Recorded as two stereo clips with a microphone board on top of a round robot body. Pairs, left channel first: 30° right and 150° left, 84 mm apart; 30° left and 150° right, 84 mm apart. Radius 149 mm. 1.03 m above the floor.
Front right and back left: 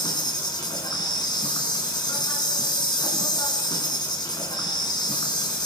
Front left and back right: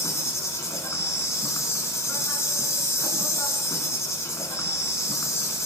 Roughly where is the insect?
Ahead.